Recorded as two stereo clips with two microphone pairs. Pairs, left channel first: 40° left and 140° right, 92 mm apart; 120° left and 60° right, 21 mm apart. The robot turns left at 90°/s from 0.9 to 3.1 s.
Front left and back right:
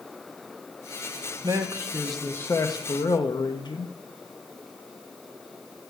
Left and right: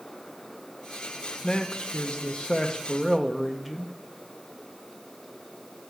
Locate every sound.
1.4 s a man speaking: 175° right, 0.8 m; by 3.9 s 35° left, 0.8 m